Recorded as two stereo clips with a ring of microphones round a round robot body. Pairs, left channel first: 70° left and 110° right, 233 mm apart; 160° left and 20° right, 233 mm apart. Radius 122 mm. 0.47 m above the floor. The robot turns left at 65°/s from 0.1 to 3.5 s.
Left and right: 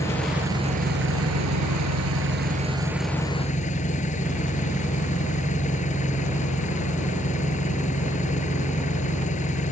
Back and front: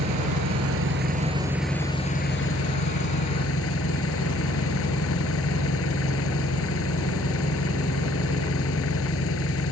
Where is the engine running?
10° right; by 9.7 s 125° left.